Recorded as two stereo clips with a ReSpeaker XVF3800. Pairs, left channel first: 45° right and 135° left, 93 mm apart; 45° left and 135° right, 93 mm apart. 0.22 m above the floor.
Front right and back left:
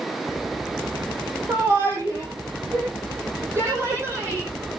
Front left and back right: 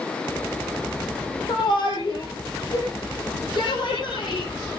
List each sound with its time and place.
1.5 s a shout: 75° left, 7 m